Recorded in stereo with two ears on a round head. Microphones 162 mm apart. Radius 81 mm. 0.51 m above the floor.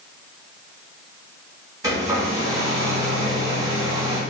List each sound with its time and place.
1.8 s a hair dryer: 20° right (ahead or behind), 0.8 m